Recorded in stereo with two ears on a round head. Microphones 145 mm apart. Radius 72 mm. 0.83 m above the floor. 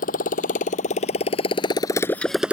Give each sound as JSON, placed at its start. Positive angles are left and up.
{"t": 0.0, "sound": "a motorcycle", "side_deg": 55}